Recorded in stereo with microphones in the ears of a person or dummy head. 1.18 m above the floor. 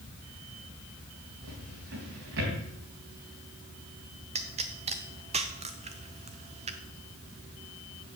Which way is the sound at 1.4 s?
55° right (ahead or behind).